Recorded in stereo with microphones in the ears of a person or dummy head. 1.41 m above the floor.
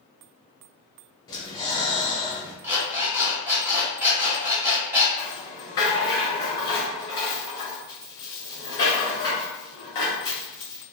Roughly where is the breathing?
Left.